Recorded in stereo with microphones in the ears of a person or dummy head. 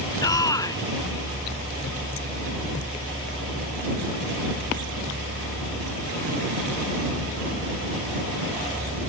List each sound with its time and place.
0.2 s a shout: 20° left (ahead or behind)